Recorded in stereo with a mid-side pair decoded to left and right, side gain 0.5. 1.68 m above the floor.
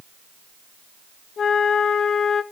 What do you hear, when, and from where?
1.4 s a flute: 55° left, 1.6 m